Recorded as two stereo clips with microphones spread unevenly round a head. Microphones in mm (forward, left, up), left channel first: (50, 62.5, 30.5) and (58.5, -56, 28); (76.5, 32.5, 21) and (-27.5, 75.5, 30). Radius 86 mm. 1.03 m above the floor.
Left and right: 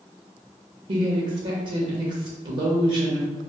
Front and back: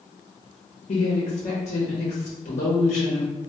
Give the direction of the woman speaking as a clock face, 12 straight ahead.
2 o'clock.